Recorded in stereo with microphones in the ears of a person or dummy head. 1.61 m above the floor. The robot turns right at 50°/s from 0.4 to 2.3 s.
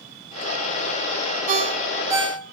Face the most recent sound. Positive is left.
turn(degrees=-10)  # may be behind; listen again after turning